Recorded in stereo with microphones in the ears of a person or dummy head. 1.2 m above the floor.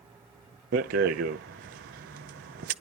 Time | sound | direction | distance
0.7 | a rattle | 50° right (ahead or behind) | 0.6 m